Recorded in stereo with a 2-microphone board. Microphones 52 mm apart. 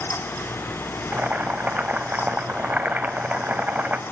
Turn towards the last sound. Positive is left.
turn(degrees=-35)  # may be behind; listen again after turning